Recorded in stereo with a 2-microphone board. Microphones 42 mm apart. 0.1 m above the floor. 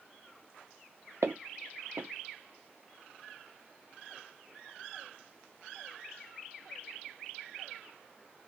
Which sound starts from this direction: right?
Footsteps, at 1.2 s.